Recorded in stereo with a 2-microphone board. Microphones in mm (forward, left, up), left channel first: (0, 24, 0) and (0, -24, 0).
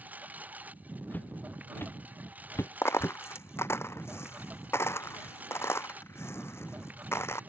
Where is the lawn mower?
35° right (ahead or behind).